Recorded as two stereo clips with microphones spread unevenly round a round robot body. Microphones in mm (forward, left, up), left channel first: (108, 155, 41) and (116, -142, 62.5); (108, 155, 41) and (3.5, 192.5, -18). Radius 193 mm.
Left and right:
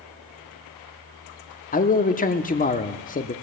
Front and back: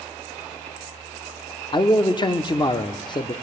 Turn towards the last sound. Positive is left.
turn(degrees=55)